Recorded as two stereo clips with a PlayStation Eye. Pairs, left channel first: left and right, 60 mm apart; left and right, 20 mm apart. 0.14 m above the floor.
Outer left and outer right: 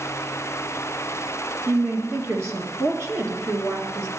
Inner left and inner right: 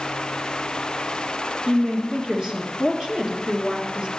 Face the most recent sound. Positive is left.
turn(degrees=-45)  # may be behind; listen again after turning